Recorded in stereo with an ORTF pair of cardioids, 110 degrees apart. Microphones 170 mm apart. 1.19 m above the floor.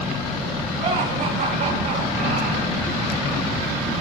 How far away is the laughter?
About 3.5 m.